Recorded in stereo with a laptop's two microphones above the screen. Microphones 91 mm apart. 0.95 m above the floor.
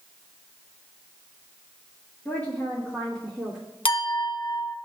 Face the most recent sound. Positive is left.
turn(degrees=65)  # may be behind; listen again after turning